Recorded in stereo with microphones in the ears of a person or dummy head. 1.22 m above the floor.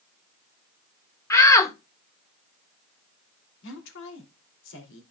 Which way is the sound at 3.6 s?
70° left (ahead or behind).